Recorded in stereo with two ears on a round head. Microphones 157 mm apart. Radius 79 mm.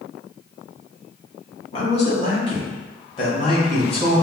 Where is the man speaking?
35° left (ahead or behind), 1.1 m; by 4.2 s 25° left (ahead or behind), 2 m.